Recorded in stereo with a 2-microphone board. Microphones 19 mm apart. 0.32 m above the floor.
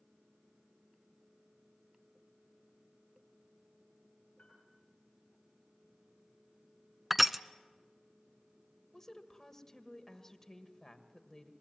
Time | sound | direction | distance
4.4 | a piano | 65° left (ahead or behind) | 6.5 m
7.1 | crushing | 5° right (ahead or behind) | 0.5 m
8.9 | a woman speaking | 25° left (ahead or behind) | 1.5 m